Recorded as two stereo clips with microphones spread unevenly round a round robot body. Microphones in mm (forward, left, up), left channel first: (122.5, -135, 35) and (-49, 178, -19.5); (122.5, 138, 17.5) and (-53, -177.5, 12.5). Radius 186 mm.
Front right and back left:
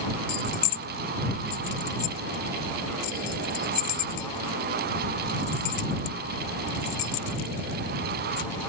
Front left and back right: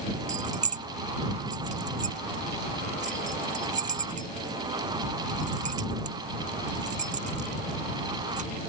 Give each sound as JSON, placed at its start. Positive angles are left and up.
{"t": 0.3, "sound": "keys jangling", "azimuth_deg": -60}